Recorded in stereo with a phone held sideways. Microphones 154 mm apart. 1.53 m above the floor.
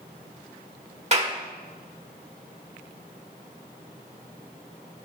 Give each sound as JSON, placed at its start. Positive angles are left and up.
{"t": 1.1, "sound": "a clap", "side_deg": -40, "distance_m": 1.5}